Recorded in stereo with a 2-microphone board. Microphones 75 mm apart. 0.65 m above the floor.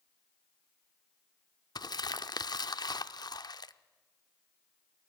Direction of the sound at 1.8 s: 65° left (ahead or behind).